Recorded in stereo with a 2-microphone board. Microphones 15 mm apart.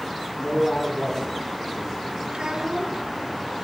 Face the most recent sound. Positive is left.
turn(degrees=-60)  # may be behind; listen again after turning